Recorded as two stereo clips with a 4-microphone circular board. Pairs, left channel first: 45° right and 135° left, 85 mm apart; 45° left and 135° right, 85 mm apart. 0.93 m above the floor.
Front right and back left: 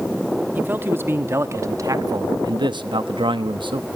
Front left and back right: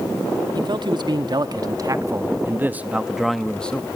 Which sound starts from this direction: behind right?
A man speaking, at 0.6 s.